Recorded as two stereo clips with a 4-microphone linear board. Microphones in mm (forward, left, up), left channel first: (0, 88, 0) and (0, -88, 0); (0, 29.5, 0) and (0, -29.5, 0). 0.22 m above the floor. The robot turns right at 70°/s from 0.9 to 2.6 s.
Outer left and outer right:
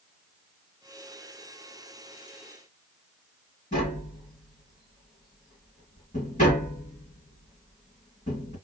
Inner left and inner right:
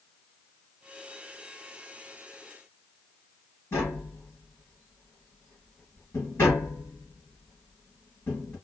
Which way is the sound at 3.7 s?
45° left (ahead or behind).